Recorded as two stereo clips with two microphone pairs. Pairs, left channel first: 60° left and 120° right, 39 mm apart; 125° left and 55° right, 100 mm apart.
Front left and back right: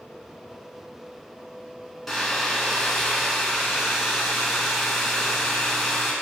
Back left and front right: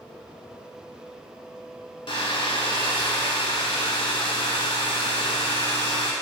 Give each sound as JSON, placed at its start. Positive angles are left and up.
{"t": 2.1, "sound": "a hair dryer", "azimuth_deg": 145, "distance_m": 0.6}